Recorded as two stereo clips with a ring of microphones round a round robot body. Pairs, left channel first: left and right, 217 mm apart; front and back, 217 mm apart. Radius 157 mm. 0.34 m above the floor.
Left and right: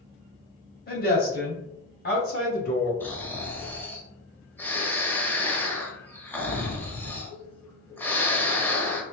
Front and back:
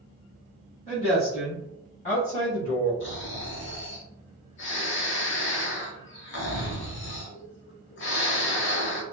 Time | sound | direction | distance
0.9 | a woman speaking | 60° left | 1.8 m
3.0 | snoring | 10° left | 1.0 m